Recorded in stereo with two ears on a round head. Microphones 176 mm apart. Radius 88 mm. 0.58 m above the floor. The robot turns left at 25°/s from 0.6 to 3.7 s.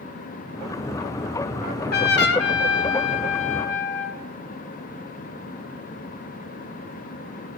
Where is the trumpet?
130° left, 1.9 m; by 4.2 s 75° left, 1.9 m.